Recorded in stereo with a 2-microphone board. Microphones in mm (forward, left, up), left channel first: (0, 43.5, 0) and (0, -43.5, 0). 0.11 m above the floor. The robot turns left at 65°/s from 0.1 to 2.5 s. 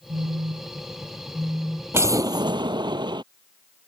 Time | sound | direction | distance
0.1 | a phone buzzing | 80° right | ?
1.9 | an explosion | 30° right | ?